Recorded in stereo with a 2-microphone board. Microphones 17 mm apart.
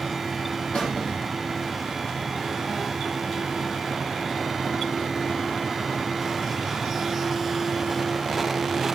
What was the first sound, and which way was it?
A squeak, 80° left.